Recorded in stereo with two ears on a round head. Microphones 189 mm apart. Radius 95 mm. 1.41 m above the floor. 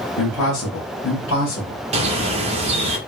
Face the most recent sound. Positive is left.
turn(degrees=-30)  # may be behind; listen again after turning